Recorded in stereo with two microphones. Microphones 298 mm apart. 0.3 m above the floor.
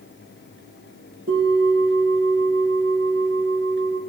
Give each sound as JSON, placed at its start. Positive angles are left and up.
{"t": 1.3, "sound": "a bell", "side_deg": -45, "distance_m": 4.5}